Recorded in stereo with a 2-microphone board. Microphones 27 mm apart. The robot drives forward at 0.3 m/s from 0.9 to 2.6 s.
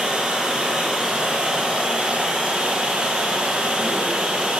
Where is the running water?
55° right (ahead or behind), 1.9 m; by 4.6 s 65° right (ahead or behind), 1.8 m.